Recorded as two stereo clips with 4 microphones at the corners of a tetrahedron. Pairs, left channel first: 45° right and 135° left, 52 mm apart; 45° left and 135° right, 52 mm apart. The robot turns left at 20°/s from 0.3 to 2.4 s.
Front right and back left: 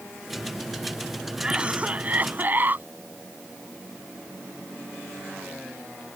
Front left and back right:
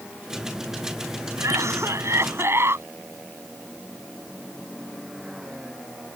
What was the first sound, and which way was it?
A cough, 150° right.